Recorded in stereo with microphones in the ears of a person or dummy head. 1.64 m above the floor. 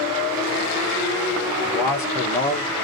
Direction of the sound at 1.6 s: 10° left (ahead or behind).